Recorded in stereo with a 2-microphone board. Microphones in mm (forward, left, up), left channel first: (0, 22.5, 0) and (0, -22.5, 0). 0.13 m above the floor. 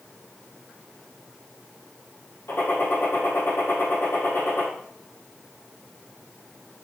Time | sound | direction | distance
2.5 | a gunshot | 65° left (ahead or behind) | 4.5 m